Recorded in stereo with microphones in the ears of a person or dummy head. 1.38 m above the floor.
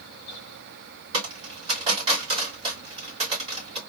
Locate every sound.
1.1 s a dropped coin: 35° right (ahead or behind), 3 m